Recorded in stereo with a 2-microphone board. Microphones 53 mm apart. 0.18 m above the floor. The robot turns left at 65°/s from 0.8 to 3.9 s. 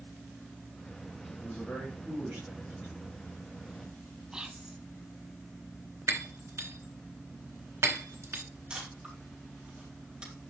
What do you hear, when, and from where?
1.4 s a man speaking: 35° left, 4.5 m; by 3.0 s 70° right, 4.5 m
4.3 s whispering: 15° right (ahead or behind), 1.0 m
6.1 s breaking glass: 60° right (ahead or behind), 1.1 m
8.7 s a camera shutter: 20° right (ahead or behind), 4 m